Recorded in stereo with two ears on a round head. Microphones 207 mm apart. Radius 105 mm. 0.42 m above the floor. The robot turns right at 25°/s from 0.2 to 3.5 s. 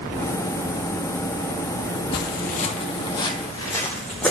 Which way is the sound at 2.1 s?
45° left (ahead or behind).